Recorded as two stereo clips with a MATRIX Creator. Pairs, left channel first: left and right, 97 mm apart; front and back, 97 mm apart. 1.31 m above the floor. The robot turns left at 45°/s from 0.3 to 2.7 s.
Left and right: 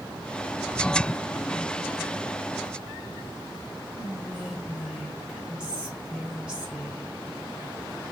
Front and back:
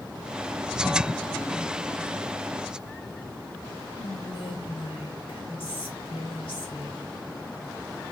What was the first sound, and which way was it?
Whispering, 10° right.